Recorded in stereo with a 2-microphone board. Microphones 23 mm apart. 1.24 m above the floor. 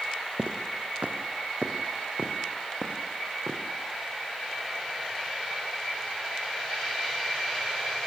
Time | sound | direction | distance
0.4 | footsteps | 60° right (ahead or behind) | 3 m